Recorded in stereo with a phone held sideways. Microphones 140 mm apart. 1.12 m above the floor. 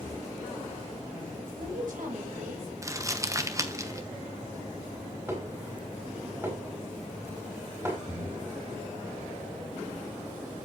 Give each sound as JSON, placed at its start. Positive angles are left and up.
{"t": 1.4, "sound": "a woman speaking", "side_deg": -80, "distance_m": 4.0}
{"t": 2.8, "sound": "crumpling", "side_deg": -25, "distance_m": 1.0}
{"t": 5.3, "sound": "dishes clattering", "side_deg": -20, "distance_m": 4.0}
{"t": 8.1, "sound": "breathing", "side_deg": -40, "distance_m": 5.5}